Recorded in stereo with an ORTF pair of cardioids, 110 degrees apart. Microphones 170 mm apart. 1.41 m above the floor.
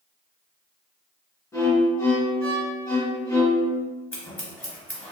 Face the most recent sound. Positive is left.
turn(degrees=10)